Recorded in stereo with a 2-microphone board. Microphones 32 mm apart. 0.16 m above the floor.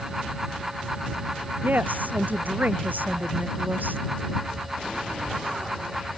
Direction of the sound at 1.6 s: 70° right (ahead or behind).